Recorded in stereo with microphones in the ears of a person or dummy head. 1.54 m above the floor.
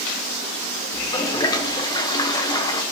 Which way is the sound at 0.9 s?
20° left (ahead or behind).